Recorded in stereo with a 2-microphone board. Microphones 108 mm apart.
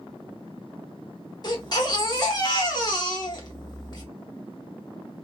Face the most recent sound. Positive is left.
turn(degrees=40)  # may be behind; listen again after turning